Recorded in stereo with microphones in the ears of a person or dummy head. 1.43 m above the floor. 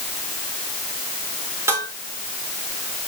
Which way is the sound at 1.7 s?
15° right (ahead or behind).